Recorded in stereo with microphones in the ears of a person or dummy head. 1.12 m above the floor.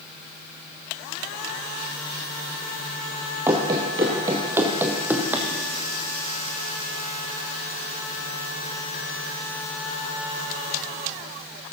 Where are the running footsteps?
10° right (ahead or behind), 1.1 m.